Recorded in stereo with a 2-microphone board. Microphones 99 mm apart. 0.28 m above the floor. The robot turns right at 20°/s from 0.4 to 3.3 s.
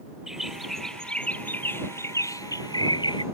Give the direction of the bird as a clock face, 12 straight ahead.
12 o'clock.